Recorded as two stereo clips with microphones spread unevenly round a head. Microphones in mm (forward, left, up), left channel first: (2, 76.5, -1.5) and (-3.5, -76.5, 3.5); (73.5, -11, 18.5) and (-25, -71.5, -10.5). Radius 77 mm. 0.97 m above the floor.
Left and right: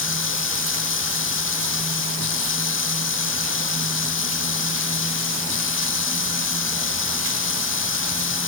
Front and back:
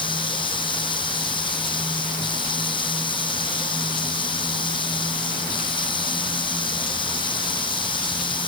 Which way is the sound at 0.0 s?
90° left.